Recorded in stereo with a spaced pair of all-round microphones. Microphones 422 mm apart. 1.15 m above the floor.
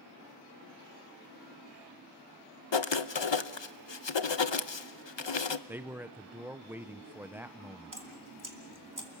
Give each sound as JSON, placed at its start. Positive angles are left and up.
{"t": 2.7, "sound": "writing", "side_deg": 85, "distance_m": 0.8}
{"t": 5.7, "sound": "a man speaking", "side_deg": -5, "distance_m": 0.7}
{"t": 7.9, "sound": "dripping", "side_deg": -45, "distance_m": 2.5}